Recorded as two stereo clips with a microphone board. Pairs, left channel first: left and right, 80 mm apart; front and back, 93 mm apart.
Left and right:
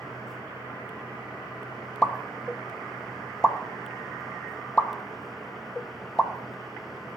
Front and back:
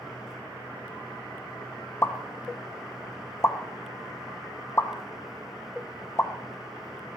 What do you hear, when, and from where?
2.0 s a pop: 20° left, 0.6 m